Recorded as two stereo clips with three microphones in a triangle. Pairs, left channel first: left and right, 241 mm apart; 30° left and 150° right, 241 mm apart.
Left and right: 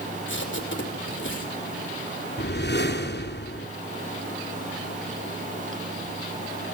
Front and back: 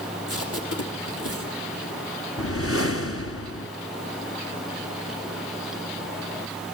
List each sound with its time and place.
0.3 s tape being pulled: 50° left, 5.5 m
2.4 s a whoosh: 50° left, 2 m